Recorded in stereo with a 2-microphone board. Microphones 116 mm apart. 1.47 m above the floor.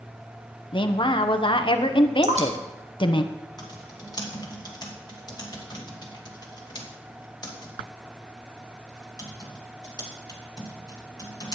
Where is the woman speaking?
45° left (ahead or behind), 1.0 m.